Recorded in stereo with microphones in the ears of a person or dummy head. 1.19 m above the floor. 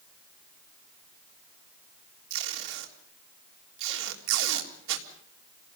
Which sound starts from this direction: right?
Tape being pulled, at 2.3 s.